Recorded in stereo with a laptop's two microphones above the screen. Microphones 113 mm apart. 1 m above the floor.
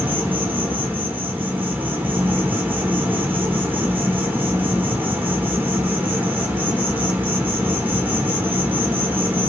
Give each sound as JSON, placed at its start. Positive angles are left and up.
{"t": 0.0, "sound": "an insect", "side_deg": -15, "distance_m": 1.0}